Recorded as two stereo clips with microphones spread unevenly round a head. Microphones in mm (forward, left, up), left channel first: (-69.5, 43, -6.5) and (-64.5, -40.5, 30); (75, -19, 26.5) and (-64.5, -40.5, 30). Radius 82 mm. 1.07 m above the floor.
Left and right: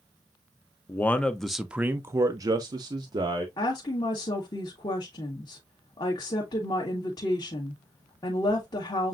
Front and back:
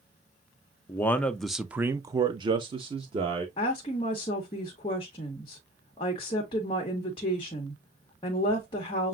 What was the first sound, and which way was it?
A man speaking, 75° left.